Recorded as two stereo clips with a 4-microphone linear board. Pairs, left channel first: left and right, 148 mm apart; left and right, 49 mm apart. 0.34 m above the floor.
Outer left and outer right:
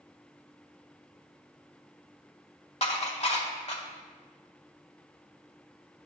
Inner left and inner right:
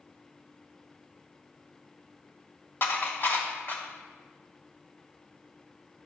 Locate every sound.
2.8 s dishes clattering: 50° left (ahead or behind), 1.1 m